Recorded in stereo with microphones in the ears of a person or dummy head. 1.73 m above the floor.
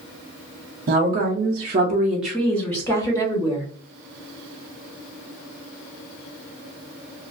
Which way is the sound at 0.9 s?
50° right (ahead or behind).